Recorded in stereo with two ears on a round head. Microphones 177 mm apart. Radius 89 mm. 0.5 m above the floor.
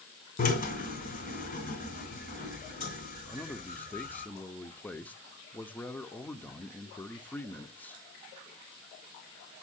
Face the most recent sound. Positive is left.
turn(degrees=10)  # may be behind; listen again after turning